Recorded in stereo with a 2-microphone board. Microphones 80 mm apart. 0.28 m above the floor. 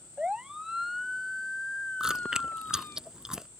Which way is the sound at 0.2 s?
15° right (ahead or behind).